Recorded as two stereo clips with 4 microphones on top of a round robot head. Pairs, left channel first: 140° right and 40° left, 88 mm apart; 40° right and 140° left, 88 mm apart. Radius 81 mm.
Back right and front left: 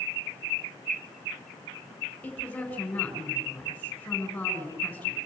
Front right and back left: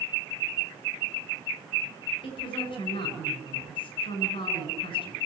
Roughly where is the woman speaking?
Ahead right.